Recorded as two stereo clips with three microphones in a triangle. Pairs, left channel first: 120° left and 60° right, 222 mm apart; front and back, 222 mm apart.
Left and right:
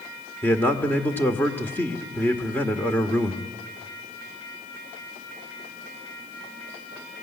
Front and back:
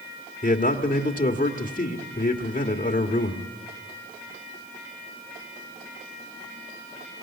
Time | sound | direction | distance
0.4 | a man speaking | 40° left | 1.5 m